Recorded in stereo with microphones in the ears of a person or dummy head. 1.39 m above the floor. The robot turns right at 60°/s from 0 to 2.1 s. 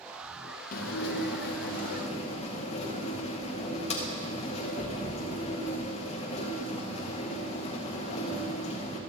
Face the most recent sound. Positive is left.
turn(degrees=145)